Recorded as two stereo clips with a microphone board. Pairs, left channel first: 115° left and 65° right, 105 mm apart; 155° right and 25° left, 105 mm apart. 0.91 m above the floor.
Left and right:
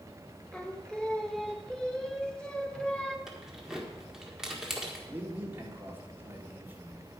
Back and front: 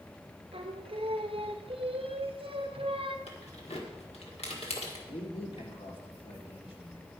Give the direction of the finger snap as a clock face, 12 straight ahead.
No finger snap in this recording.